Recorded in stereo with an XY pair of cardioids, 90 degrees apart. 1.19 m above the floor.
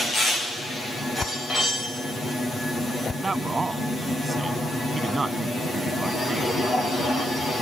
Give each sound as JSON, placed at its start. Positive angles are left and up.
{"t": 1.2, "sound": "a whoosh", "azimuth_deg": 40}
{"t": 3.1, "sound": "a man speaking", "azimuth_deg": -30}